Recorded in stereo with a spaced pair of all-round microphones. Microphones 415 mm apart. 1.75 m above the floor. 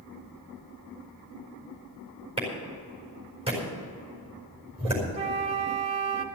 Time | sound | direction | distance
2.4 | a clap | 15° right (ahead or behind) | 4.5 m
5.1 | a flute | 15° right (ahead or behind) | 1.3 m